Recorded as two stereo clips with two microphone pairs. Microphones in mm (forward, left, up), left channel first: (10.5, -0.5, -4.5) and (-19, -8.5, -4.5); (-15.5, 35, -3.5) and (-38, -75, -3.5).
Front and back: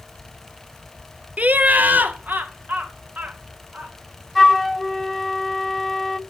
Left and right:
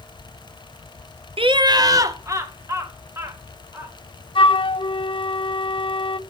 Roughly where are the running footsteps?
I don't hear running footsteps.